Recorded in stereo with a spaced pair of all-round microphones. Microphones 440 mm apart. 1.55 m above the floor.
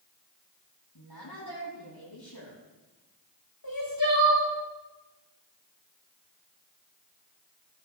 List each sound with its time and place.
0.9 s a woman speaking: 60° left (ahead or behind), 9.5 m
3.6 s crying: 50° left (ahead or behind), 6 m